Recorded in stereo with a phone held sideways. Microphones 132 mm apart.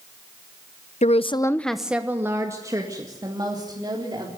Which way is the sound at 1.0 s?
65° left (ahead or behind).